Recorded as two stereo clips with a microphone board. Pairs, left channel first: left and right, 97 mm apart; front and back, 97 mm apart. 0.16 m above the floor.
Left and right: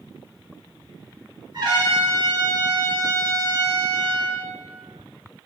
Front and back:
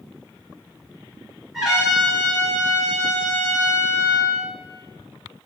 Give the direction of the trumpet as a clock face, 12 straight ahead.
3 o'clock.